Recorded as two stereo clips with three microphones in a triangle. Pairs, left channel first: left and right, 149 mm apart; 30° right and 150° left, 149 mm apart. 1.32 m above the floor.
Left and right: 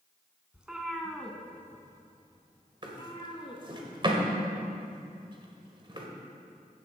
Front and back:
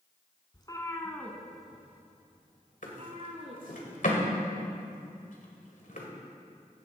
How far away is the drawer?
About 1.9 m.